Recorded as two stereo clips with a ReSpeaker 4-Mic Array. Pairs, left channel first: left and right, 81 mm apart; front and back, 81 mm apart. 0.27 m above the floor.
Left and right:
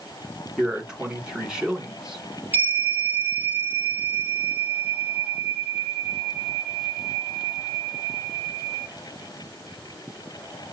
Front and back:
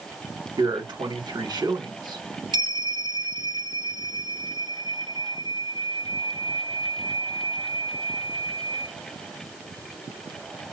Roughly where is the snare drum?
I don't hear a snare drum.